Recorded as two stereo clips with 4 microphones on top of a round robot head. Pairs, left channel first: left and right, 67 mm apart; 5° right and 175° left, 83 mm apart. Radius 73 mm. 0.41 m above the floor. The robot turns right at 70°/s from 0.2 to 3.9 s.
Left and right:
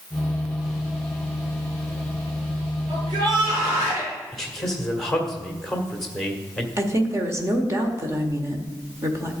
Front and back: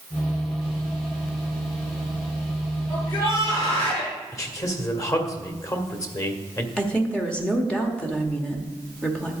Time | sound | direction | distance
2.9 | a shout | 80° right | 5.5 m
4.3 | a man speaking | 10° left | 1.5 m
6.8 | a woman speaking | 80° right | 1.5 m